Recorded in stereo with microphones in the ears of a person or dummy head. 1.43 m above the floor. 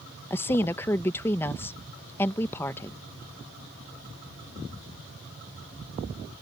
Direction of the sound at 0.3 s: 15° left (ahead or behind).